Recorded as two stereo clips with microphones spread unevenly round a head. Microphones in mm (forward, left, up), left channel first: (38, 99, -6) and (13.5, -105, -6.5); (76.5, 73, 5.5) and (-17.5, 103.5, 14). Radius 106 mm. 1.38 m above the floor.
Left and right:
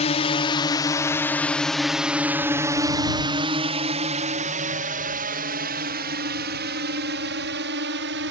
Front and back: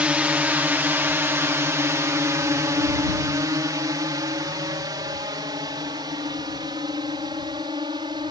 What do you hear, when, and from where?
0.0 s a drone: 95° left; by 8.3 s 135° right